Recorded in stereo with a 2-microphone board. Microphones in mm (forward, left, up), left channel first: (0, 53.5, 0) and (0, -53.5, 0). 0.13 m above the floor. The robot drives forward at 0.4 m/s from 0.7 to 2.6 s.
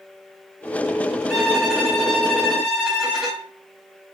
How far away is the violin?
About 1.7 m.